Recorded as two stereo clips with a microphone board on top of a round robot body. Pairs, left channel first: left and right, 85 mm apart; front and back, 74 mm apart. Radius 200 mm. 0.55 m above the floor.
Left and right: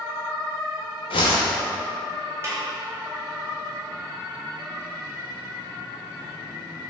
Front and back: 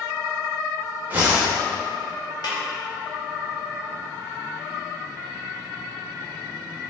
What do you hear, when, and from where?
1.1 s a whoosh: 115° left, 0.6 m
2.4 s a snare drum: 30° right, 1.7 m